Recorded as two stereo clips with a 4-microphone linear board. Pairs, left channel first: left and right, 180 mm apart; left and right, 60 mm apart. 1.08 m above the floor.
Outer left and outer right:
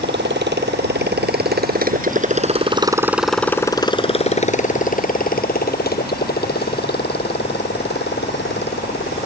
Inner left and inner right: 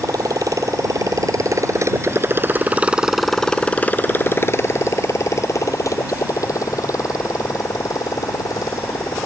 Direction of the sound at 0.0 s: 80° right.